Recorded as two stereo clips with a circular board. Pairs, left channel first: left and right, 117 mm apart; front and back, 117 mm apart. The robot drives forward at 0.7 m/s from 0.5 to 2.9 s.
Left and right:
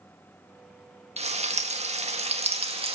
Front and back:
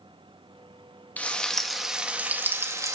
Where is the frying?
75° right, 1.8 m; by 3.0 s 120° right, 1.9 m.